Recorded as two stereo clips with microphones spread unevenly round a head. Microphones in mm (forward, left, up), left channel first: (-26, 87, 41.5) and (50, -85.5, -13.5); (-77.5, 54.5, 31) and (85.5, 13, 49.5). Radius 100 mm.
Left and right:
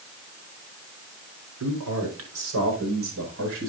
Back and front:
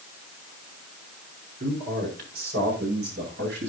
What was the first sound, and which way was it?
A man speaking, 60° right.